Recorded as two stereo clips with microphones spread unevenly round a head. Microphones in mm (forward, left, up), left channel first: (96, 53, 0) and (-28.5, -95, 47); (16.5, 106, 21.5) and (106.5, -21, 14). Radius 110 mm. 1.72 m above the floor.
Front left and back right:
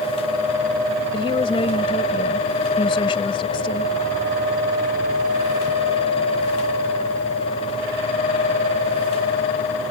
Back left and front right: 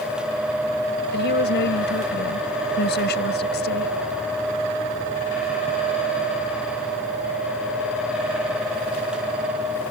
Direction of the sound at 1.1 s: 120° left.